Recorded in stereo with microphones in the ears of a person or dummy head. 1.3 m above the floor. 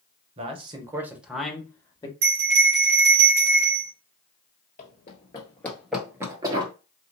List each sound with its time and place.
0.4 s a man speaking: 35° right (ahead or behind), 1.2 m; by 2.1 s 20° left (ahead or behind), 1.2 m
2.2 s a bell: 50° right (ahead or behind), 1.5 m
4.8 s running footsteps: 40° left (ahead or behind), 1.6 m; by 6.7 s 30° right (ahead or behind), 1.5 m